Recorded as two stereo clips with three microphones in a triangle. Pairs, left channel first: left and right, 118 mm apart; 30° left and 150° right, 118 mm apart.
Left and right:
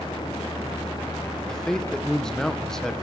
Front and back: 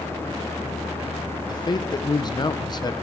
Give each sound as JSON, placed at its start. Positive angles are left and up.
{"t": 1.5, "sound": "a man speaking", "azimuth_deg": 5, "distance_m": 0.7}